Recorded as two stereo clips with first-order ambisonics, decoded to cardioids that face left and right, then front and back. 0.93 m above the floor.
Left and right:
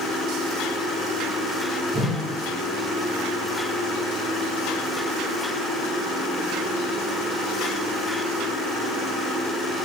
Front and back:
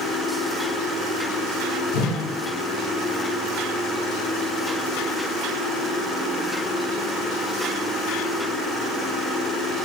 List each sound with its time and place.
1.9 s a whoosh: 10° right, 2.0 m